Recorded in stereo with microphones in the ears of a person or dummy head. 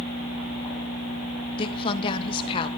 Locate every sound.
1.6 s a woman speaking: 35° left (ahead or behind), 1.2 m